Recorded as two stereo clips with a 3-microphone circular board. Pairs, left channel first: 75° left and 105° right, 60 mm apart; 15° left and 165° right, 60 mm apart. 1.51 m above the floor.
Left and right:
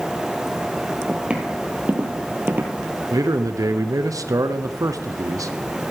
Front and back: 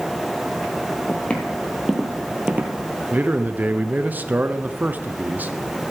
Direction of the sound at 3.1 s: 110° right.